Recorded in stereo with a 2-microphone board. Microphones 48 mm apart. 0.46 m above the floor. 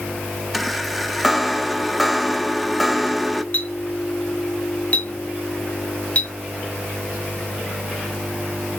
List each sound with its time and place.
0.5 s a chime: centre (ahead or behind), 0.6 m
3.5 s a clink: 30° left (ahead or behind), 2 m